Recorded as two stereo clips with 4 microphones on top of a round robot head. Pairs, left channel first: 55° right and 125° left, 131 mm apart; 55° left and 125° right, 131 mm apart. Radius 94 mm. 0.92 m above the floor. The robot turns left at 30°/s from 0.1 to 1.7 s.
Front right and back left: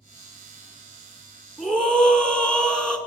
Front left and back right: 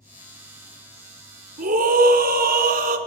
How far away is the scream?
About 2.5 m.